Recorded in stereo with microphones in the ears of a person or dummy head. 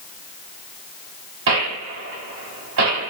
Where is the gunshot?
70° right (ahead or behind), 2.5 m.